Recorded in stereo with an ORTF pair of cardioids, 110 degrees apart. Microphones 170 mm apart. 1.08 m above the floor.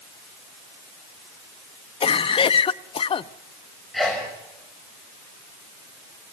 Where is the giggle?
No giggle in this recording.